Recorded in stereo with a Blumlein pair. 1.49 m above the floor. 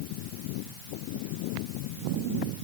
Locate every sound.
Only background noise.